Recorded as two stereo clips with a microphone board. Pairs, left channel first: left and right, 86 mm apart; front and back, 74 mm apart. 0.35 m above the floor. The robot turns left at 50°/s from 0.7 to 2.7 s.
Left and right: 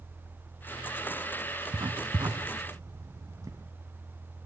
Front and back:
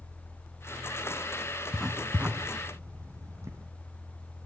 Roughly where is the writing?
Right.